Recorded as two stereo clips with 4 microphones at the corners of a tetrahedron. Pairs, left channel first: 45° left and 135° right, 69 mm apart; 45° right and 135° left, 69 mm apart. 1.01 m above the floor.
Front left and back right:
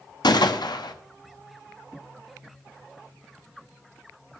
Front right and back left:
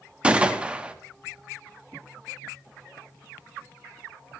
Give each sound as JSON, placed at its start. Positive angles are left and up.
{"t": 0.2, "sound": "a gunshot", "azimuth_deg": 60, "distance_m": 0.9}